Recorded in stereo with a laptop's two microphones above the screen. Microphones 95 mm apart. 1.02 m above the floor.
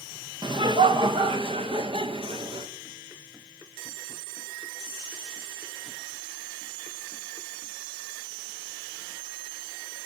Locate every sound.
0.4 s laughter: 55° right (ahead or behind), 0.9 m; by 2.7 s 75° right (ahead or behind), 2.5 m